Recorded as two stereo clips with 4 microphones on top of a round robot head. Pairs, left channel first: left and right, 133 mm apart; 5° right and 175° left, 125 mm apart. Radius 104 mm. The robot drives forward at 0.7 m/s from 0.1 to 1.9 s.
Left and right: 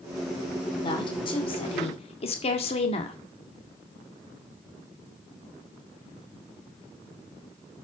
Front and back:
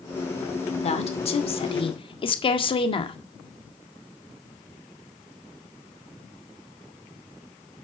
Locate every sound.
0.8 s a woman speaking: 30° left, 2.5 m; by 3.2 s 40° left, 1.8 m